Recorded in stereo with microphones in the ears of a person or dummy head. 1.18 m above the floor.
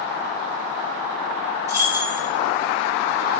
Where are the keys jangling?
15° right (ahead or behind), 1.3 m.